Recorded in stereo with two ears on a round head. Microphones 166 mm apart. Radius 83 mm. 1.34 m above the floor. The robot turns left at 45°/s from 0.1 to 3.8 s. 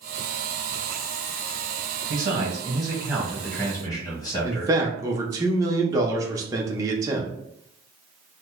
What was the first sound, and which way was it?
A man speaking, 125° right.